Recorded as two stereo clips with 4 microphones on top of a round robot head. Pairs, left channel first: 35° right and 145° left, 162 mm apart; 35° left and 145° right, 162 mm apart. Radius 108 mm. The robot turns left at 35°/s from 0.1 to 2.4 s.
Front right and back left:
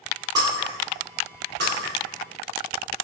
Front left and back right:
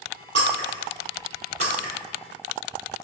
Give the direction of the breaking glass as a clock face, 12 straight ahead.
5 o'clock.